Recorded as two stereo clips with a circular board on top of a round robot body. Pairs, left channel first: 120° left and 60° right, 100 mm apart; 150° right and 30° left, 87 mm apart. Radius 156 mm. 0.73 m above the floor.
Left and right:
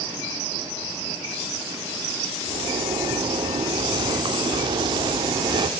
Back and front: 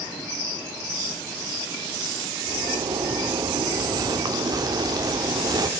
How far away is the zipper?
About 1.3 m.